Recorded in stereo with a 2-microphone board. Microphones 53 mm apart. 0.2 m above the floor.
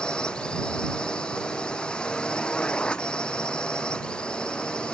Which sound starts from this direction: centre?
A drone, at 0.0 s.